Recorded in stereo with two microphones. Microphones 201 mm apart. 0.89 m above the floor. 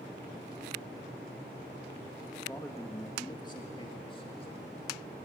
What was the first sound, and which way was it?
A man speaking, 10° left (ahead or behind).